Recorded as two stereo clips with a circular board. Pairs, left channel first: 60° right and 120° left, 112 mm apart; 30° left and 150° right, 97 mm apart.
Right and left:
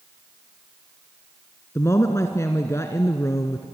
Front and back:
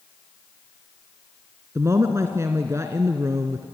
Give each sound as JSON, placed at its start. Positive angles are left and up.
{"t": 1.8, "sound": "a woman speaking", "azimuth_deg": -110, "distance_m": 1.3}